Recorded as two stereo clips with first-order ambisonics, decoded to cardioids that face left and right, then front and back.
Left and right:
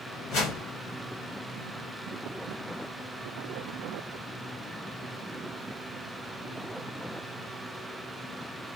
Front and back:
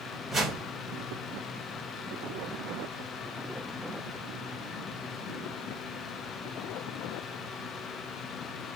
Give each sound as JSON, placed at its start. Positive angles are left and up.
{"t": 0.3, "sound": "a whoosh", "azimuth_deg": 100, "distance_m": 1.1}